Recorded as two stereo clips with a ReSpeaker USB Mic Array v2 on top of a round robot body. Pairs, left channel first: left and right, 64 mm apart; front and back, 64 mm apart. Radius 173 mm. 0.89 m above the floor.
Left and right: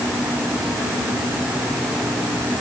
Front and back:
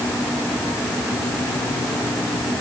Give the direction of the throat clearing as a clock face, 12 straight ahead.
I don't hear throat clearing.